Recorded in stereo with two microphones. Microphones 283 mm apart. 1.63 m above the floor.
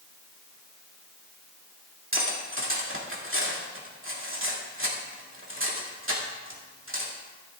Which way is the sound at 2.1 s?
45° right (ahead or behind).